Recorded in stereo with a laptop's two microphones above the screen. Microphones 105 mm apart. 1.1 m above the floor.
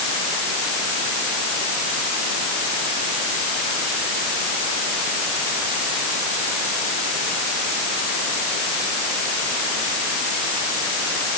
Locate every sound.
Only background noise.